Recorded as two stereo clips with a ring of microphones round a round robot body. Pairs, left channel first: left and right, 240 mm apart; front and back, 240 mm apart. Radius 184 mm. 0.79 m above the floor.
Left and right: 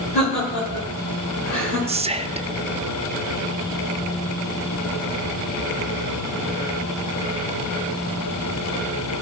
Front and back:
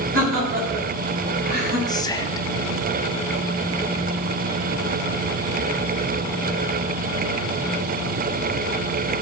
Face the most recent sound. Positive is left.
turn(degrees=-55)